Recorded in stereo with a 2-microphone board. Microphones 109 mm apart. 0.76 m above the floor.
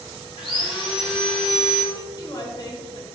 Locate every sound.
0.4 s sawing: 50° left (ahead or behind), 1.4 m
1.9 s a woman speaking: 35° left (ahead or behind), 0.7 m